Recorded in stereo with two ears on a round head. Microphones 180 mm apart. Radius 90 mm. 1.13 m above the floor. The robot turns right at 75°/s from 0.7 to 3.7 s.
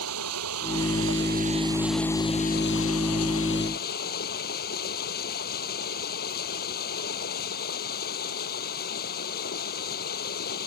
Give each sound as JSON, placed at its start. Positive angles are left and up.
{"t": 0.0, "sound": "running water", "azimuth_deg": -95}